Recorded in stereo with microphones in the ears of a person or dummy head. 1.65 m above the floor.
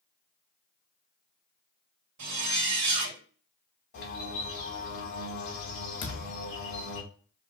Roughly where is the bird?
Left.